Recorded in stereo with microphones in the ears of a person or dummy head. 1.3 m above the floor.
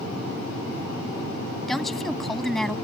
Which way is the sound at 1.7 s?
5° left (ahead or behind).